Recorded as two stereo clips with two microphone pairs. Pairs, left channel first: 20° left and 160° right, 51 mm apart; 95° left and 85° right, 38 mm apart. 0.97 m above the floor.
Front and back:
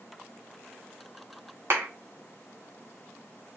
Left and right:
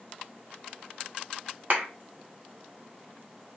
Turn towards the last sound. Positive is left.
turn(degrees=-125)